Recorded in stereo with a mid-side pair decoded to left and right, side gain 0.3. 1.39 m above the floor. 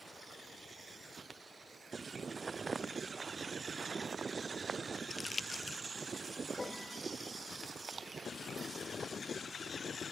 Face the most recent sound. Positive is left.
turn(degrees=25)